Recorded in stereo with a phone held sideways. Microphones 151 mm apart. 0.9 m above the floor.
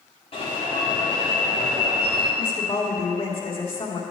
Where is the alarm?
45° left (ahead or behind), 3.5 m.